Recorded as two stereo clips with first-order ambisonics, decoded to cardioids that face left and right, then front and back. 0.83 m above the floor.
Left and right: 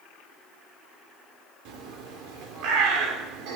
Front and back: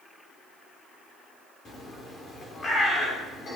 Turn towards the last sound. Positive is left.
turn(degrees=-65)